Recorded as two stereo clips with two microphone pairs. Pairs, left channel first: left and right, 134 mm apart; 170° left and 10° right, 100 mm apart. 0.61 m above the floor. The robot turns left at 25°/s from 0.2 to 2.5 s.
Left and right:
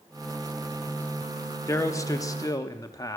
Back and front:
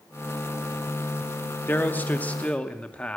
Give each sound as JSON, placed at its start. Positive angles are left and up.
{"t": 1.7, "sound": "a man speaking", "azimuth_deg": 130, "distance_m": 0.8}